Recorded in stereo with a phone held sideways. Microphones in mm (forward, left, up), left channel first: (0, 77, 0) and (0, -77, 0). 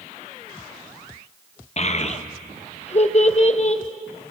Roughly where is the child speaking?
Left.